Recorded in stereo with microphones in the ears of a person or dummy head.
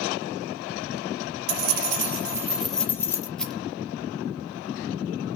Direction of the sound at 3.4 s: Centre (ahead or behind).